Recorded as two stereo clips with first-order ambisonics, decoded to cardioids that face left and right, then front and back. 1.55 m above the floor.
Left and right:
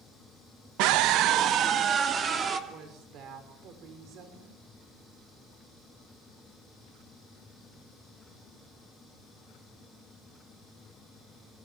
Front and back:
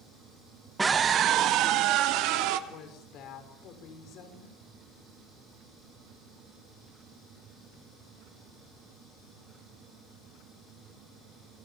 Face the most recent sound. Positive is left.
turn(degrees=-45)